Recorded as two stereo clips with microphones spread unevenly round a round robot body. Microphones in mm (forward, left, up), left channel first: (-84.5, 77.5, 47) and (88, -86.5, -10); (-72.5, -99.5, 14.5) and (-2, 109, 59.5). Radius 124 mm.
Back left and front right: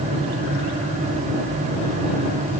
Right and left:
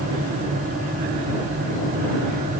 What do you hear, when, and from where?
Only background noise.